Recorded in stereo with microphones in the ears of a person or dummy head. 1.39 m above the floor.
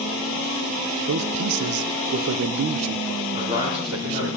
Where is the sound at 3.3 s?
30° right (ahead or behind), 4 m.